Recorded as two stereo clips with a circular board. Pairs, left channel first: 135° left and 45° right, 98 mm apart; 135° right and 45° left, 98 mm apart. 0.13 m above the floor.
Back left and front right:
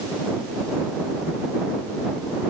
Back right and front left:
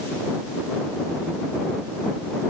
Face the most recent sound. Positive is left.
No sound to turn to.